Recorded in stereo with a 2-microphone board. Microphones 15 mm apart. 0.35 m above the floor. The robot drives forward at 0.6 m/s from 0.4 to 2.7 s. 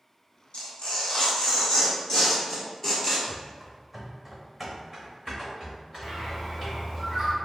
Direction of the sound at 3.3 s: 15° right (ahead or behind).